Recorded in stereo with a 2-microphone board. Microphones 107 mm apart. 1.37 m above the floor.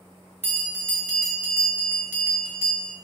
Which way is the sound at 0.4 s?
20° right (ahead or behind).